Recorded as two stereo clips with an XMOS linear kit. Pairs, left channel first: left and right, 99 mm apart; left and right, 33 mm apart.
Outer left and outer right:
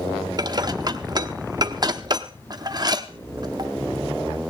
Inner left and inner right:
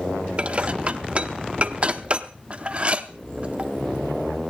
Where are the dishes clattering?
40° right (ahead or behind), 0.8 m.